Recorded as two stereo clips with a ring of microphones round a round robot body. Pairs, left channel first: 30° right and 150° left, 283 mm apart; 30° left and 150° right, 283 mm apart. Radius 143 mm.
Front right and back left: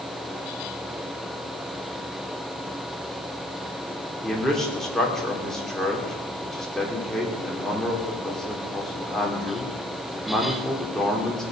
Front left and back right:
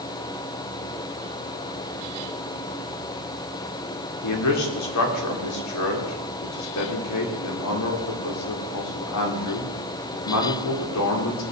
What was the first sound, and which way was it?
A man speaking, 60° left.